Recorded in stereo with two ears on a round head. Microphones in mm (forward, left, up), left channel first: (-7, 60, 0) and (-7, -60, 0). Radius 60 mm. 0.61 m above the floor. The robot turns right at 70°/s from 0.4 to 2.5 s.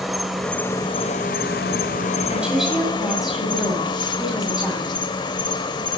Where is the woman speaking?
15° right (ahead or behind), 2 m; by 4.9 s 5° right (ahead or behind), 2 m.